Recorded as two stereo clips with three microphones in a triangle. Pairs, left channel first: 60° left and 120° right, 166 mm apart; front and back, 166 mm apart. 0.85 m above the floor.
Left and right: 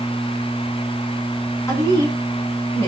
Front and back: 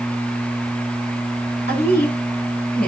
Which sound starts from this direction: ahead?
A woman speaking, at 1.7 s.